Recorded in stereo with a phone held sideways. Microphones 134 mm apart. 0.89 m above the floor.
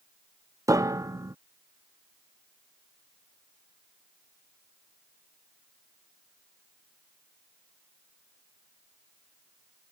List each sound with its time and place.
0.7 s a piano: 25° right (ahead or behind)